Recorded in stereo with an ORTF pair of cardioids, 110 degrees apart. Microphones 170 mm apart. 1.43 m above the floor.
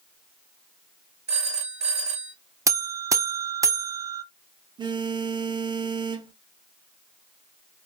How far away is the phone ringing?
About 1.5 m.